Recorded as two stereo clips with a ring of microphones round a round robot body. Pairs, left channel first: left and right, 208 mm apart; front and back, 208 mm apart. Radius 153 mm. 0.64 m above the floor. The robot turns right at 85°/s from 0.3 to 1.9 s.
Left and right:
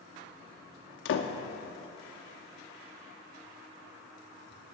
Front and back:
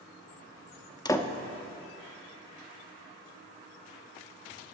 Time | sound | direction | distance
1.1 | a door slam | 70° left | 0.8 m